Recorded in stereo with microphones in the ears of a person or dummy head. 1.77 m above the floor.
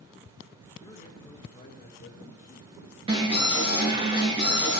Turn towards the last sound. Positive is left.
turn(degrees=-35)  # may be behind; listen again after turning